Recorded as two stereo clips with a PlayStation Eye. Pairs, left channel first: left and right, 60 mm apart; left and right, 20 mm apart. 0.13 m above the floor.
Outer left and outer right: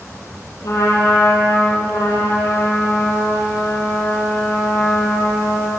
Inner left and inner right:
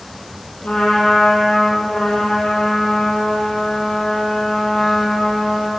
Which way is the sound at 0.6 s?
65° left (ahead or behind).